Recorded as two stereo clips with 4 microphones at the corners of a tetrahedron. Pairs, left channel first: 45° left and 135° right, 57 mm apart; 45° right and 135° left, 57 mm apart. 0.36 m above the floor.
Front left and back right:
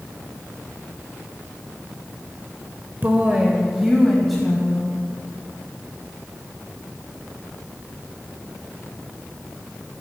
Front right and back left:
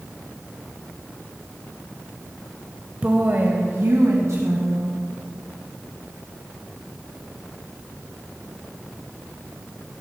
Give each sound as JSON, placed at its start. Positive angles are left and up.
{"t": 3.0, "sound": "a woman speaking", "azimuth_deg": -175, "distance_m": 1.1}